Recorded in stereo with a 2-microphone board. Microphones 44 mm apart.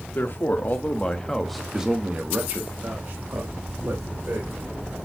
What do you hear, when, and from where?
0.1 s a man speaking: 55° left (ahead or behind), 2 m; by 5.0 s 70° right (ahead or behind), 4 m